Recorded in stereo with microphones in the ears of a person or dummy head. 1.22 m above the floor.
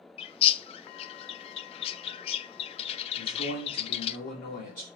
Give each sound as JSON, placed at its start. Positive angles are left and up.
{"t": 0.2, "sound": "a bird", "side_deg": 25, "distance_m": 0.8}
{"t": 3.2, "sound": "a man speaking", "side_deg": 45, "distance_m": 3.0}